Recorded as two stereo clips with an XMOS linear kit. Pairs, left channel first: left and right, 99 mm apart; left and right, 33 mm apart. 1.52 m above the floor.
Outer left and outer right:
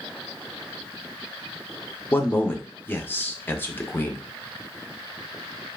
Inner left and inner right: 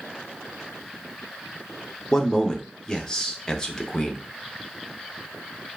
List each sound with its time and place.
2.1 s a man speaking: 20° left (ahead or behind), 0.6 m